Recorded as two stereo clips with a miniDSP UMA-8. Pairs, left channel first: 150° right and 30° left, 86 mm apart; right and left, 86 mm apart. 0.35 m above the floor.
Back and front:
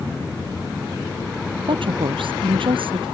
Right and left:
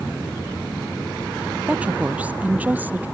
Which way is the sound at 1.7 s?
15° left.